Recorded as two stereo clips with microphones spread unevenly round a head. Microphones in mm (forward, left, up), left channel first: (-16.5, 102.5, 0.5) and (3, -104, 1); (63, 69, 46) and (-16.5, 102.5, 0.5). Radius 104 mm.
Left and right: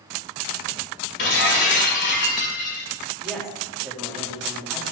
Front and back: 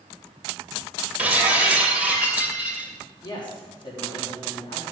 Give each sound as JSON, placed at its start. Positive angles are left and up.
{"t": 1.2, "sound": "breaking glass", "azimuth_deg": 65, "distance_m": 2.0}
{"t": 3.2, "sound": "a woman speaking", "azimuth_deg": 5, "distance_m": 3.0}